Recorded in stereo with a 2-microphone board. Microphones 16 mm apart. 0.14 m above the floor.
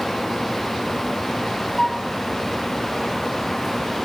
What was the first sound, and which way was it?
A flute, 35° left (ahead or behind).